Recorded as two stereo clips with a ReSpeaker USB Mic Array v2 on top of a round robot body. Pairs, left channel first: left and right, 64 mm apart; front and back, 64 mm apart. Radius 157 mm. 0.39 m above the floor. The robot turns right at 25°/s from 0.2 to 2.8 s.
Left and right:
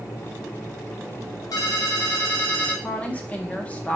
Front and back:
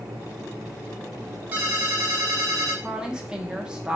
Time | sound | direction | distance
1.5 | a ringtone | 120° left | 1.0 m
2.8 | a woman speaking | 125° left | 0.8 m